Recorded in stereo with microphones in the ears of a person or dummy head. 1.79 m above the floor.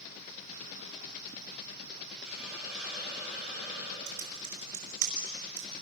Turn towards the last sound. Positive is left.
turn(degrees=-60)  # may be behind; listen again after turning